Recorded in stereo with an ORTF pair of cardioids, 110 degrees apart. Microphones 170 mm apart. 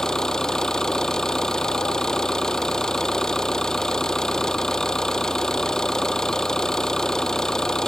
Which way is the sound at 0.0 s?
5° left.